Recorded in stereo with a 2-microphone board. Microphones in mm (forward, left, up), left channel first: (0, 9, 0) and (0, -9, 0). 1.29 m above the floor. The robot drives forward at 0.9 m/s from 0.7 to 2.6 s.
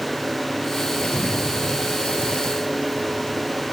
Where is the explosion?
75° left (ahead or behind); by 3.4 s 80° left.